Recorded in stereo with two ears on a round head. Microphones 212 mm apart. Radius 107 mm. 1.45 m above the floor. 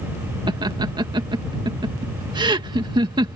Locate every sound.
0.5 s laughter: 20° right (ahead or behind)